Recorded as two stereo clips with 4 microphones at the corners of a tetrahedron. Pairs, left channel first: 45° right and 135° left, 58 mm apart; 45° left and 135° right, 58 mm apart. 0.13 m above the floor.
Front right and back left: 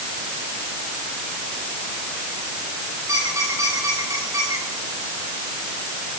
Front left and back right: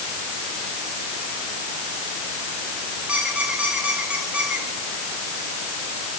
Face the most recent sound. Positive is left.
turn(degrees=155)